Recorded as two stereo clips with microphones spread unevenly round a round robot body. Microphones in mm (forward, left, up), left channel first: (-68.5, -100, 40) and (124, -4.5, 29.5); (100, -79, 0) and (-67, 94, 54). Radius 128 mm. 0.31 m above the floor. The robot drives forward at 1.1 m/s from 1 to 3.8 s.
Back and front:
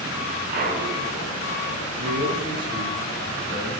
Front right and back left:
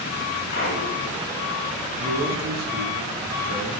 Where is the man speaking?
85° left, 3 m; by 3.7 s 120° left, 3.5 m.